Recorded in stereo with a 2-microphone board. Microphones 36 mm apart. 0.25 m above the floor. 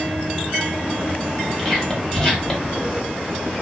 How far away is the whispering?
About 1.2 m.